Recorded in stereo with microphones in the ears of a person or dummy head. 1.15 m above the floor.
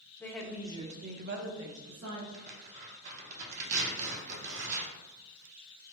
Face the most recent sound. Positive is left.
turn(degrees=-40)  # may be behind; listen again after turning